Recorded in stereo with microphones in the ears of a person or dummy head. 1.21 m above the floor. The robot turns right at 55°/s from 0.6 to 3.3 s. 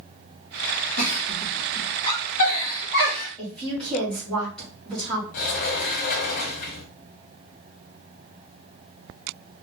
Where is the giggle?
55° left (ahead or behind), 2.5 m; by 3.3 s centre (ahead or behind), 2.5 m.